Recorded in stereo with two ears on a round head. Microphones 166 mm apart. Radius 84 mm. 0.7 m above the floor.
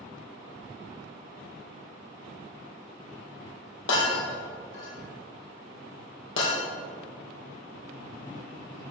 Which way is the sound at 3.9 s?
75° left (ahead or behind).